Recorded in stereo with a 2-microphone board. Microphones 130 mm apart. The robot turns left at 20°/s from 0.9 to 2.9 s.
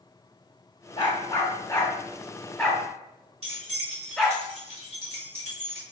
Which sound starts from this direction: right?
Keys jangling, at 3.4 s.